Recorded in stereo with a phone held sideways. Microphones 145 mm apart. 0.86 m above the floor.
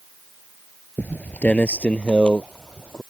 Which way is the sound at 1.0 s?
10° left (ahead or behind).